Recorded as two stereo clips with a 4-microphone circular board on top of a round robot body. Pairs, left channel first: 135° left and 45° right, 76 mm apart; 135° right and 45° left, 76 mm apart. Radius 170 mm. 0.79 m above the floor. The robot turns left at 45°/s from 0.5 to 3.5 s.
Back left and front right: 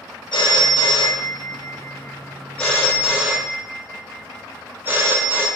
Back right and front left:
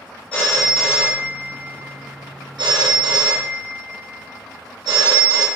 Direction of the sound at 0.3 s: 155° left.